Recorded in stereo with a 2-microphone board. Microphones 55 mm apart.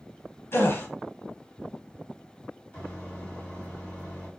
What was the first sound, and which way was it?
A gasp, 50° left (ahead or behind).